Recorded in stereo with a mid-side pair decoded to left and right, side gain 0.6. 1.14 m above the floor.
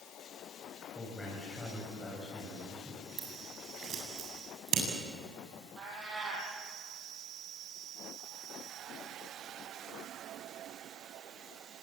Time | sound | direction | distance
0.9 | a man speaking | 10° left | 7.5 m
3.2 | scissors | 50° right | 8 m
5.8 | a cat meowing | 35° right | 7.5 m